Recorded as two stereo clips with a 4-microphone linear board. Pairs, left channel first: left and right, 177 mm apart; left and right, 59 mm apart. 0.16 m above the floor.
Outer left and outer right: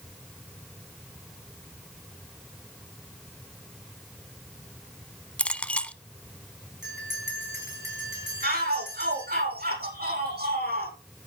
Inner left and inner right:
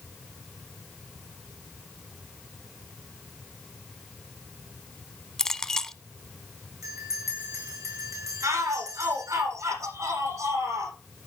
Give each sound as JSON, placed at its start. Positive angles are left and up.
{"t": 5.4, "sound": "a clink", "side_deg": 5, "distance_m": 0.6}
{"t": 6.8, "sound": "a bell", "side_deg": -70, "distance_m": 8.0}
{"t": 8.4, "sound": "a shout", "side_deg": -65, "distance_m": 7.5}